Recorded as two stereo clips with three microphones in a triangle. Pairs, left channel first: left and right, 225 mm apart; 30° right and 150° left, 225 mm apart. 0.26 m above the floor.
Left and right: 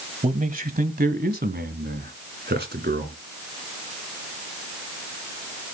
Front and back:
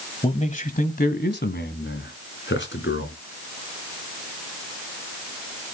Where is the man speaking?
70° right, 1.2 m; by 3.2 s 55° right, 3 m.